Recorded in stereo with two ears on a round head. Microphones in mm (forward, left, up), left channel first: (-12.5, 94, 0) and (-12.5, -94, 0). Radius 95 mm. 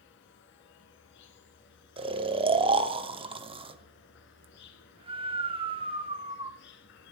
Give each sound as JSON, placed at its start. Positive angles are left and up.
{"t": 0.0, "sound": "an insect", "side_deg": 55, "distance_m": 1.3}
{"t": 2.0, "sound": "snoring", "side_deg": -25, "distance_m": 0.7}